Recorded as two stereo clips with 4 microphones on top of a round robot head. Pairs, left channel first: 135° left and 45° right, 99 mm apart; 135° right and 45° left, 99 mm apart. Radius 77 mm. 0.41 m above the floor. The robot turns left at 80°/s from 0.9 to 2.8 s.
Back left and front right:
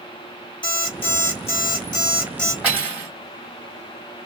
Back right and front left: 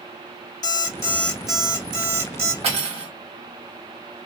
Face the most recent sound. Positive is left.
turn(degrees=25)